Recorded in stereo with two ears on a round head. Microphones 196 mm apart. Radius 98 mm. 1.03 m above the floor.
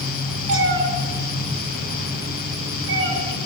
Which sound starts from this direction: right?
A cat meowing, at 0.5 s.